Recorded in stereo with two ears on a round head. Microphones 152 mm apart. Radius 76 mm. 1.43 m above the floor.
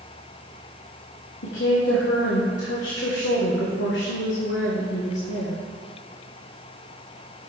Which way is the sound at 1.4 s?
75° left (ahead or behind).